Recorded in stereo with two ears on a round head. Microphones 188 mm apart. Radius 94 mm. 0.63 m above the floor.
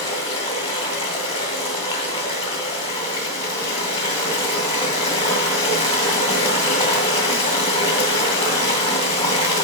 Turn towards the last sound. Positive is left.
turn(degrees=30)  # may be behind; listen again after turning